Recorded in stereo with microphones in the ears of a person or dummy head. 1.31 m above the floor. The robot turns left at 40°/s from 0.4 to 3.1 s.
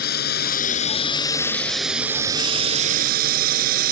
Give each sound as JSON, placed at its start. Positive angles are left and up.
{"t": 0.0, "sound": "a drone", "side_deg": 55}